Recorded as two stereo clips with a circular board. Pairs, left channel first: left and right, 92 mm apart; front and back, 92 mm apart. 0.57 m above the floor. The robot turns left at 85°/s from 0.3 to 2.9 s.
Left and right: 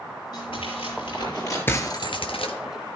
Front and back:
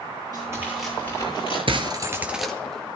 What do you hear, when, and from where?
0.3 s tearing paper: 135° left, 10 m; by 1.6 s 30° left, 10 m
1.7 s breaking glass: 155° left, 1.6 m; by 2.5 s 80° left, 1.6 m